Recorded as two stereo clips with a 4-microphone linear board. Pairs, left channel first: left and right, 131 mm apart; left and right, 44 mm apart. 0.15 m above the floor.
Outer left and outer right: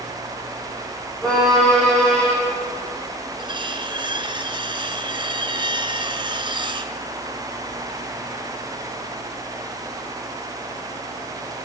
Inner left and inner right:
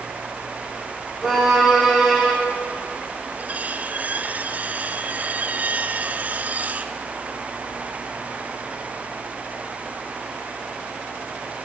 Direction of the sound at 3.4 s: 40° right (ahead or behind).